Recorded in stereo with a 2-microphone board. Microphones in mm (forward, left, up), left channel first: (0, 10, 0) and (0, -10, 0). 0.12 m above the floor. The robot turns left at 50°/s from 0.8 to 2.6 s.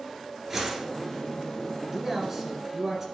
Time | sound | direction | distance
0.5 | a whoosh | 20° right (ahead or behind) | 1.1 m
1.9 | a man speaking | 15° right (ahead or behind) | 1.6 m